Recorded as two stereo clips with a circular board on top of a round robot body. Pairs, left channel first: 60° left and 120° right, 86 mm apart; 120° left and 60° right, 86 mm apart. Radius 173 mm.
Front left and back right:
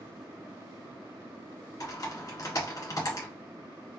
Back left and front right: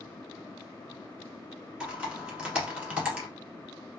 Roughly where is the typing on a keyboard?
Ahead.